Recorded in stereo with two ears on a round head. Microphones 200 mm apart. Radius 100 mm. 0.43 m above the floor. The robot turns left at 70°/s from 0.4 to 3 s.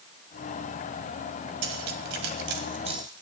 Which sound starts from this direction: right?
Cutlery clinking, at 1.6 s.